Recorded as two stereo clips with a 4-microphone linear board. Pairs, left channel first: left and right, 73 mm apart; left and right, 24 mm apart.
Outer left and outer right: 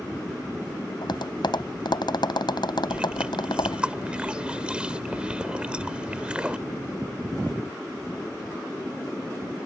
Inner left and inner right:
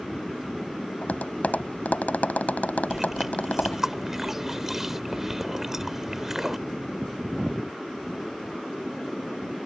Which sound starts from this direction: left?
Tapping, at 1.0 s.